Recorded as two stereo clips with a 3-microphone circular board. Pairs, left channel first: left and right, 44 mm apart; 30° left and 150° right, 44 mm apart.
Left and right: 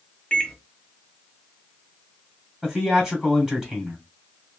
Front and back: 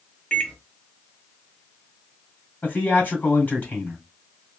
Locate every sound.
0.3 s a microwave: 50° left, 0.7 m
2.6 s a man speaking: 20° right, 1.8 m